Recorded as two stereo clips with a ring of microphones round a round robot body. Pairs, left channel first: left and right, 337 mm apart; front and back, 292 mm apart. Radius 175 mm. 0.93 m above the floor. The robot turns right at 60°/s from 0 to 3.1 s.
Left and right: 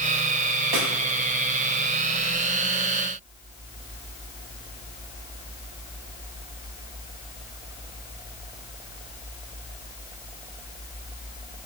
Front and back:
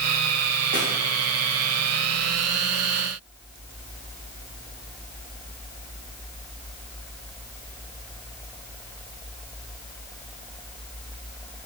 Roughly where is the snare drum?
Right.